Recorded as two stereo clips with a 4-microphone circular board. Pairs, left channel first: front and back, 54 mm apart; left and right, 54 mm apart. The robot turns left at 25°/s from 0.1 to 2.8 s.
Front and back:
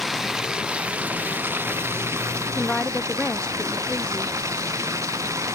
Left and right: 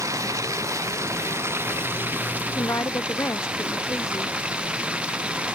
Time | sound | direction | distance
0.0 | running water | 95° right | ?
2.5 | a woman speaking | 80° left | ?